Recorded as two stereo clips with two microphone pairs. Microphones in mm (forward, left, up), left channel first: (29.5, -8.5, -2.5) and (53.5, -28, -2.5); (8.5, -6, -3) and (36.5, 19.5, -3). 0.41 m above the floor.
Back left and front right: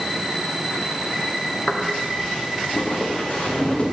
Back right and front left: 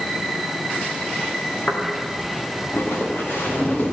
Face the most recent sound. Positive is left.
turn(degrees=-165)